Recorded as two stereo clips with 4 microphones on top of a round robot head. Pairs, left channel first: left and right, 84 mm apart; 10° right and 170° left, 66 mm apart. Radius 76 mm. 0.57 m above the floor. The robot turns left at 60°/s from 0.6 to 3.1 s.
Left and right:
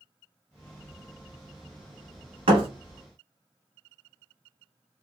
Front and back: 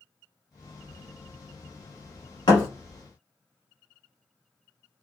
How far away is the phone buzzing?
No phone buzzing in this recording.